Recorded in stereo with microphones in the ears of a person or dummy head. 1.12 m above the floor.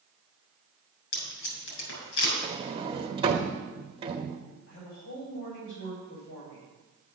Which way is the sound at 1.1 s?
80° left.